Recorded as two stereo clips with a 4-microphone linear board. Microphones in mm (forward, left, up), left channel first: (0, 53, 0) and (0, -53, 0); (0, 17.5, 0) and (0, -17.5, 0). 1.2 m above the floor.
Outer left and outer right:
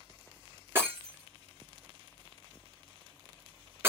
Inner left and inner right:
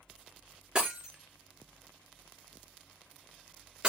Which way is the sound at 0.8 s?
20° right (ahead or behind).